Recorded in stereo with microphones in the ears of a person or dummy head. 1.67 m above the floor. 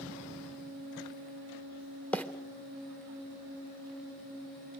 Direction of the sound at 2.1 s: 5° left (ahead or behind).